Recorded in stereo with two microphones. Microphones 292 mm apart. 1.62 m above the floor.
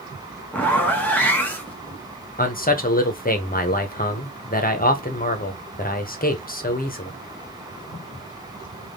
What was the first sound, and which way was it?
A zipper, 5° left (ahead or behind).